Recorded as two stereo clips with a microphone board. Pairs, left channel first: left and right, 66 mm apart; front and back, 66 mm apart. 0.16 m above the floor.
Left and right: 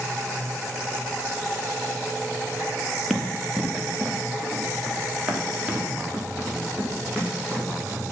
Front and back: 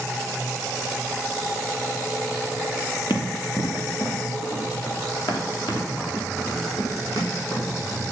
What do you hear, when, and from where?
3.1 s running footsteps: 5° right, 1.9 m; by 8.1 s 10° right, 4.5 m